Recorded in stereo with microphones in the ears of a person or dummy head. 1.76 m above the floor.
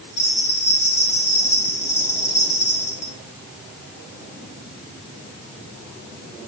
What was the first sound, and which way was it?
A bell, 15° left (ahead or behind).